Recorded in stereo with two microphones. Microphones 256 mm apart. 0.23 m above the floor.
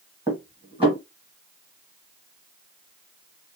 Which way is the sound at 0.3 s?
20° right (ahead or behind).